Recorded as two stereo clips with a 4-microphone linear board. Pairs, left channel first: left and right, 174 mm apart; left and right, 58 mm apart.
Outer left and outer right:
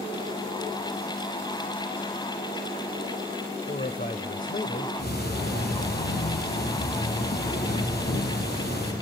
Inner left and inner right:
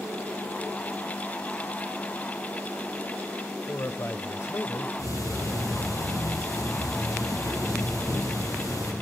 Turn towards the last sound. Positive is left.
turn(degrees=65)  # may be behind; listen again after turning